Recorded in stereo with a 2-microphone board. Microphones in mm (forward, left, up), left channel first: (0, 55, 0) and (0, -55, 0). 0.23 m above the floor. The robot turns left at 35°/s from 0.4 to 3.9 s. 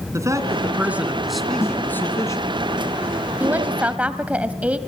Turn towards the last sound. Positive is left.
turn(degrees=-10)  # may be behind; listen again after turning